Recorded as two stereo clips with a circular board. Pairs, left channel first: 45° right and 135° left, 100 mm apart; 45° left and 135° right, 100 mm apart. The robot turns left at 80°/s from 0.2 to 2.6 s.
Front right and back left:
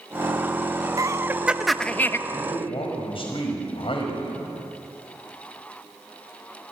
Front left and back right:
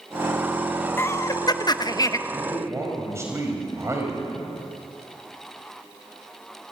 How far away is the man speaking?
About 5.5 m.